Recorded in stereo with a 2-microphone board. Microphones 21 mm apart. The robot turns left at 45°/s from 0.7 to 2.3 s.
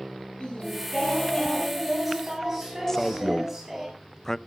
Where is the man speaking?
20° left (ahead or behind), 0.6 m.